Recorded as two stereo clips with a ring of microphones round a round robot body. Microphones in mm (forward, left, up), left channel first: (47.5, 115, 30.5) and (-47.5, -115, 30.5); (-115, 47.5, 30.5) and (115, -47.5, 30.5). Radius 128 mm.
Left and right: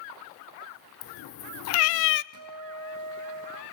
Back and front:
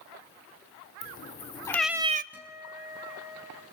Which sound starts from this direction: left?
A cat meowing, at 1.0 s.